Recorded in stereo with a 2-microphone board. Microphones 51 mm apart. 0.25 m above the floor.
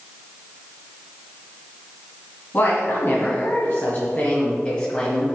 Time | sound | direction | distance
2.5 | a woman speaking | 50° left (ahead or behind) | 1.9 m